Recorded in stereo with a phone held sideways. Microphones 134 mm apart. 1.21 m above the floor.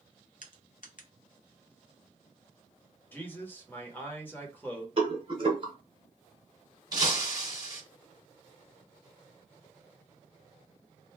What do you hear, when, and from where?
0.4 s crushing: 65° left (ahead or behind), 0.6 m
3.1 s a man speaking: 15° left (ahead or behind), 1.1 m
5.0 s a rattle: 40° right (ahead or behind), 1.0 m
6.9 s breaking glass: 30° right (ahead or behind), 1.2 m